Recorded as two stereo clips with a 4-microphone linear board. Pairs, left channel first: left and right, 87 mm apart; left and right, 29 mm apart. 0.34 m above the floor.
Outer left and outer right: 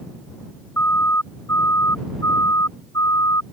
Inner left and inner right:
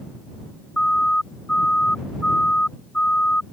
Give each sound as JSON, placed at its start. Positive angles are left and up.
{"t": 0.8, "sound": "a siren", "side_deg": 30}